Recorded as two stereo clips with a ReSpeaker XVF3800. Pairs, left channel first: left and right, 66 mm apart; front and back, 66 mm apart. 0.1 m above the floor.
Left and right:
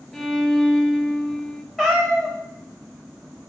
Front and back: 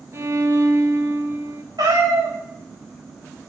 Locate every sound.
0.1 s a violin: 170° left, 1.3 m
1.8 s a cat meowing: straight behind, 4 m